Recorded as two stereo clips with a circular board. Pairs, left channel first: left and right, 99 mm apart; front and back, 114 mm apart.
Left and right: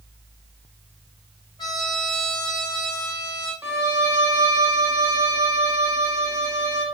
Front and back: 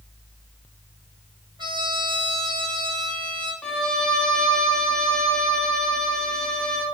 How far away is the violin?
About 0.7 m.